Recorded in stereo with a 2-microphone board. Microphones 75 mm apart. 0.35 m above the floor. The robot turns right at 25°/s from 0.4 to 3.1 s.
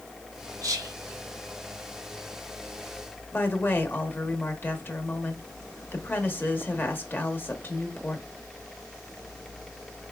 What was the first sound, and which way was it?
Whispering, 50° right (ahead or behind).